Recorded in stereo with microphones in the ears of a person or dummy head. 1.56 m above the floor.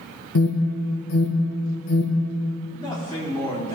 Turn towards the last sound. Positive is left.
turn(degrees=25)  # may be behind; listen again after turning